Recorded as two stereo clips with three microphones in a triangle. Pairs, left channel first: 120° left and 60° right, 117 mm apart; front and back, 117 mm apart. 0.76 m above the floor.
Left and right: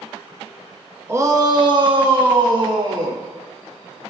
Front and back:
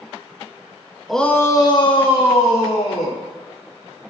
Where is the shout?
90° right, 1.0 m; by 3.2 s 15° right, 3 m.